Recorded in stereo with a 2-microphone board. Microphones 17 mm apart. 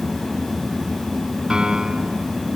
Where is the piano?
40° right (ahead or behind).